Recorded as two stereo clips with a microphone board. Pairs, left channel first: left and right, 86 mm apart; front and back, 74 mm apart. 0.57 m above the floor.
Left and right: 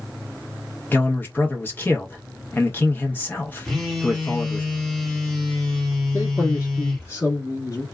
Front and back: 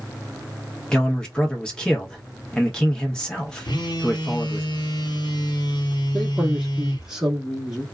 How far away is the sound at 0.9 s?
About 0.9 m.